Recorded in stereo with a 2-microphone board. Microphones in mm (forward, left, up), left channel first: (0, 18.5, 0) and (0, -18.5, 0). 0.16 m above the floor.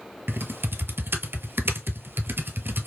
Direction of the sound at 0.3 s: 80° right.